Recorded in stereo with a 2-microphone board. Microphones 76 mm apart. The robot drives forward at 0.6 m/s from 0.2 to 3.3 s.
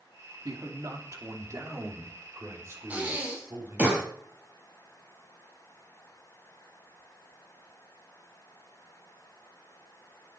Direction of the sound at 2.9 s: 20° right (ahead or behind).